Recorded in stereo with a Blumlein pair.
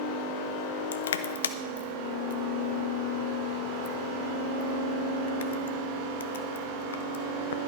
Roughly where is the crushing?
Ahead left.